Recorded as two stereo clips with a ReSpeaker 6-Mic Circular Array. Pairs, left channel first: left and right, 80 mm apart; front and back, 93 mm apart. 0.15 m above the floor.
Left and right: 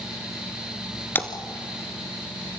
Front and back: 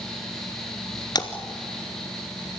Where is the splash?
30° left, 1.3 m.